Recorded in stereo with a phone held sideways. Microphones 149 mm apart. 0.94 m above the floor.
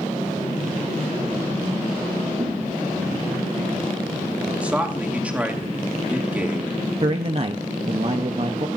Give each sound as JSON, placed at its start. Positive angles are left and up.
{"t": 2.4, "sound": "a thud", "side_deg": -45, "distance_m": 2.5}
{"t": 4.6, "sound": "a man speaking", "side_deg": -10, "distance_m": 2.0}
{"t": 7.0, "sound": "a man speaking", "side_deg": -40, "distance_m": 0.8}